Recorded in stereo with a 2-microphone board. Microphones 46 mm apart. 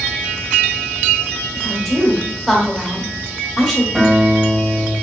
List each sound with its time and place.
1.6 s a woman speaking: centre (ahead or behind), 1.0 m
4.0 s a guitar: 15° right (ahead or behind), 1.3 m